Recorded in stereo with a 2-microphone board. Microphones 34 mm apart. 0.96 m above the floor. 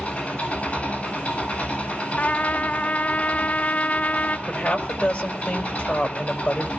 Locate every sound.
0.0 s an engine running: 30° left (ahead or behind), 9 m
2.2 s a trumpet: 45° left (ahead or behind), 0.8 m
4.5 s a woman speaking: 30° left (ahead or behind), 5 m